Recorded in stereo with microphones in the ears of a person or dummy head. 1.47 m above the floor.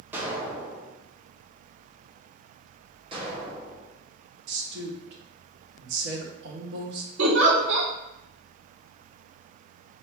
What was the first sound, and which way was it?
An explosion, 10° right (ahead or behind).